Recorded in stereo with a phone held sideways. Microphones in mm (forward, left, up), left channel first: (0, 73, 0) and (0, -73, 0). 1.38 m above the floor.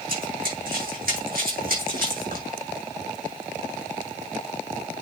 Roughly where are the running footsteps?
Right.